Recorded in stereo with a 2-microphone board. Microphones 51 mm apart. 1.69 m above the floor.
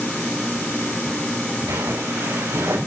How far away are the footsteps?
About 9 m.